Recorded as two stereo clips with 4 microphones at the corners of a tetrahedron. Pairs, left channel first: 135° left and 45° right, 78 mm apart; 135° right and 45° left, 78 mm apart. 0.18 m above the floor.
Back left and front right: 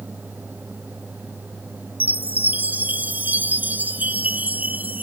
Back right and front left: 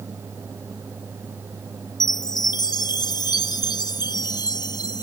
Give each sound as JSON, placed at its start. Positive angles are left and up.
{"t": 2.0, "sound": "a chime", "azimuth_deg": -110}